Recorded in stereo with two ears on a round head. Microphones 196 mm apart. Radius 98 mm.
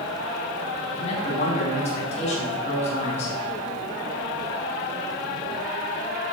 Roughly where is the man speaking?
Left.